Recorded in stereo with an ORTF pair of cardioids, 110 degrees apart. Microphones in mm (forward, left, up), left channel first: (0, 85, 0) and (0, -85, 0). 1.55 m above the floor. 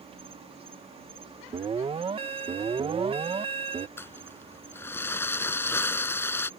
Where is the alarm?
35° right.